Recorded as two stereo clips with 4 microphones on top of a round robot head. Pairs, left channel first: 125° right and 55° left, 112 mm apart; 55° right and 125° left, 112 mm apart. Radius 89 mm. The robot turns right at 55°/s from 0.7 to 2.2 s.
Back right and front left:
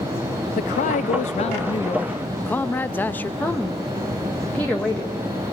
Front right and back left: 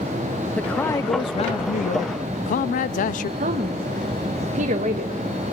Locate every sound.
0.6 s a man speaking: 135° right, 0.5 m; by 3.3 s 50° right, 0.5 m
3.4 s a woman speaking: 155° left, 1.5 m